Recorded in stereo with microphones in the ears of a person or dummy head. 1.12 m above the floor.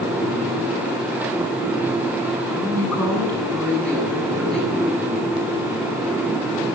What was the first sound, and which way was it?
A woman speaking, 15° left (ahead or behind).